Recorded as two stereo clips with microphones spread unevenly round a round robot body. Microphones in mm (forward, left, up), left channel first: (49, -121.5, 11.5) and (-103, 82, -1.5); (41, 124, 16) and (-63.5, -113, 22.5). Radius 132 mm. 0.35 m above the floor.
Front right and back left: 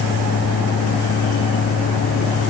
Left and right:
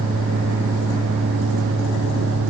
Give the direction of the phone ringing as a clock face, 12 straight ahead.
I don't hear a phone ringing.